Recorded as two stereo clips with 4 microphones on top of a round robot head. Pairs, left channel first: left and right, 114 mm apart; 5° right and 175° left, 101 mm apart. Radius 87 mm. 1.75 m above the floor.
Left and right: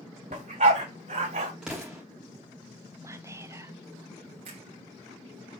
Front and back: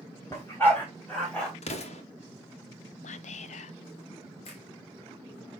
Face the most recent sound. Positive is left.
turn(degrees=-45)